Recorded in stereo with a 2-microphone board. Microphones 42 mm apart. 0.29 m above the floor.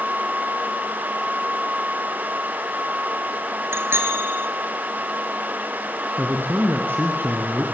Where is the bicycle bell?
75° right (ahead or behind), 3.5 m.